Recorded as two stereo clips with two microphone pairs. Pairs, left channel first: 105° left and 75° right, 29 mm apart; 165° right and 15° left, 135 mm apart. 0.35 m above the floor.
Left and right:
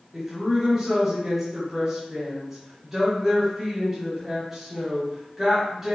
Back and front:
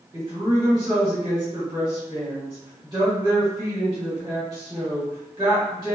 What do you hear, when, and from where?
0.1 s a woman speaking: 20° right, 1.5 m